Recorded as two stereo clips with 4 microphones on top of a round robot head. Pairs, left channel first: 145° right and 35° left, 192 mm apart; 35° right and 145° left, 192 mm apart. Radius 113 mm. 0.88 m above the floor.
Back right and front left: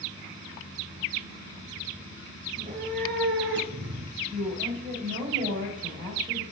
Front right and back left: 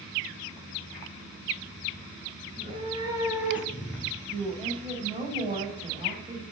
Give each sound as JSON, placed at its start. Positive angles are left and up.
{"t": 2.5, "sound": "a cat meowing", "azimuth_deg": 90, "distance_m": 2.0}
{"t": 4.3, "sound": "a woman speaking", "azimuth_deg": 85, "distance_m": 4.5}